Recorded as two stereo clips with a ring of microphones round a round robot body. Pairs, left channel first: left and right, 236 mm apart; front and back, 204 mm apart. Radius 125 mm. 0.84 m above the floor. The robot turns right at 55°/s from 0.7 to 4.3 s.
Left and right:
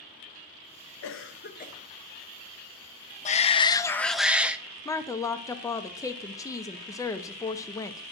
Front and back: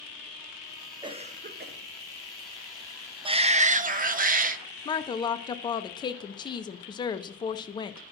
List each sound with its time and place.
1.0 s a cough: 110° left, 0.7 m; by 1.8 s 150° left, 0.7 m
3.2 s a shout: 130° left, 0.6 m; by 4.6 s 175° right, 0.6 m
4.8 s a woman speaking: 35° left, 0.5 m